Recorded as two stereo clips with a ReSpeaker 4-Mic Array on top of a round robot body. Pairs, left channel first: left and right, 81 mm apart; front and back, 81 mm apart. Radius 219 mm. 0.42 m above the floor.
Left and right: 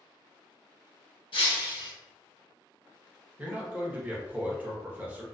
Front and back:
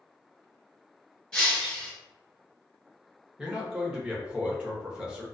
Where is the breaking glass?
80° left, 1.5 m.